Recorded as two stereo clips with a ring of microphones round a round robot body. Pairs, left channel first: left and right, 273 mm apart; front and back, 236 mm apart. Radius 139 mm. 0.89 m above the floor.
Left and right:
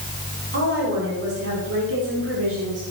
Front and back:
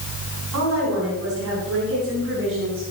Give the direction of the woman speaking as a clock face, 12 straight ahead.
5 o'clock.